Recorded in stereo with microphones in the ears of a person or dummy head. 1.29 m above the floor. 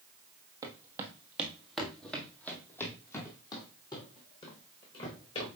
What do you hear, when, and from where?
0.6 s footsteps: 25° right (ahead or behind), 1.6 m; by 5.5 s 30° left (ahead or behind), 3.5 m